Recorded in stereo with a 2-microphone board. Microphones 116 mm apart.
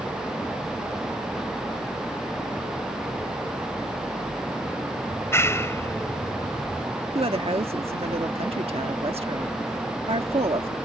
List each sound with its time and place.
5.1 s a clap: 25° left (ahead or behind)
7.2 s a woman speaking: 55° right (ahead or behind)